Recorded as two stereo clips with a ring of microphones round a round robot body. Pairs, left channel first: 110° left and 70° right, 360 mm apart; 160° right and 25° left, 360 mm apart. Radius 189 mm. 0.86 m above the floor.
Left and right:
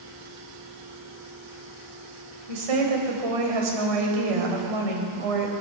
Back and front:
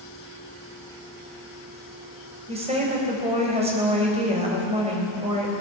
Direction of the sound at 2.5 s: 50° right.